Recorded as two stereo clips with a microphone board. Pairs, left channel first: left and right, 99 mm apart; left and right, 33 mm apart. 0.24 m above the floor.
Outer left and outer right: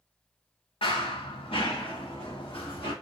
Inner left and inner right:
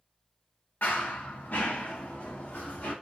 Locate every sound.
0.8 s running footsteps: 70° left (ahead or behind), 1.2 m; by 2.9 s 60° left (ahead or behind), 2.5 m